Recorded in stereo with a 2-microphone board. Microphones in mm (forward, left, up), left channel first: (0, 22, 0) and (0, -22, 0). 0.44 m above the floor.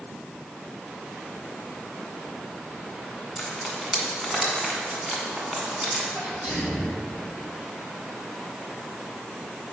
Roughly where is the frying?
Centre.